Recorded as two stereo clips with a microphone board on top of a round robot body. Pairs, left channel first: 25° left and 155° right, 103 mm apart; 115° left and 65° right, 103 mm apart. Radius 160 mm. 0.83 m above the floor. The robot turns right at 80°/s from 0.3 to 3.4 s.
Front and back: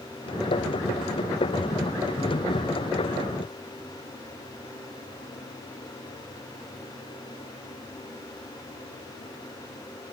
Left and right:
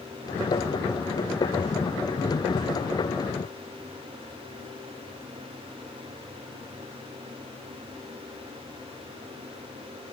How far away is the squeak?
I don't hear a squeak.